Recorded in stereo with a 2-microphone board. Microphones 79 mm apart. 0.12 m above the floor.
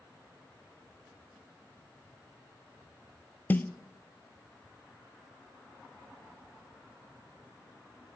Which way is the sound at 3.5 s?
25° left (ahead or behind).